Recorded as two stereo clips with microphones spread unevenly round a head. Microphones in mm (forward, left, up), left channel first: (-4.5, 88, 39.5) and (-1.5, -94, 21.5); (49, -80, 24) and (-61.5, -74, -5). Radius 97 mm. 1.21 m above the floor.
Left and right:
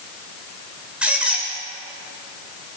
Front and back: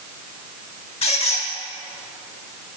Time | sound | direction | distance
1.0 | a squeak | straight ahead | 1.7 m